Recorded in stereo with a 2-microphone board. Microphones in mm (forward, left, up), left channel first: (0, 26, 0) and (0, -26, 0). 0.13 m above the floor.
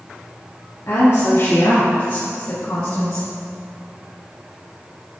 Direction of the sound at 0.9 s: 50° left (ahead or behind).